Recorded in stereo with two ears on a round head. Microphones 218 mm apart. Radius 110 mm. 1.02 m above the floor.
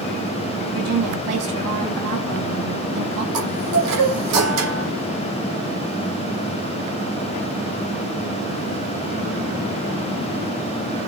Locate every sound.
0.7 s a woman speaking: 70° right (ahead or behind), 7 m
3.3 s a chime: 70° right (ahead or behind), 9 m